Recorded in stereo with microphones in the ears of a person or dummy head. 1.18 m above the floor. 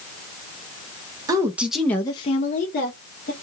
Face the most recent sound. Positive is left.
turn(degrees=50)  # may be behind; listen again after turning